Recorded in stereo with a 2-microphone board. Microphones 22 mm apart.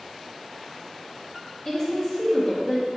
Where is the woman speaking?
30° left (ahead or behind), 1.7 m.